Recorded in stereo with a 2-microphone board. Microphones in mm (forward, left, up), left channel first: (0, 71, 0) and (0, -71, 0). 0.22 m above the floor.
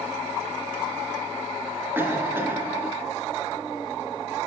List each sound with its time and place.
1.9 s a cough: 15° right (ahead or behind), 3 m